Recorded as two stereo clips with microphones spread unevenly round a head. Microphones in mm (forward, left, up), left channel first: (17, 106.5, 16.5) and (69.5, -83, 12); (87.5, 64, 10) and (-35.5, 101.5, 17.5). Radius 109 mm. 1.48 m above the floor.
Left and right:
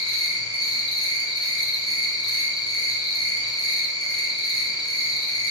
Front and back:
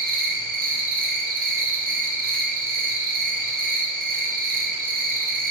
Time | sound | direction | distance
0.0 | an insect | straight behind | 0.9 m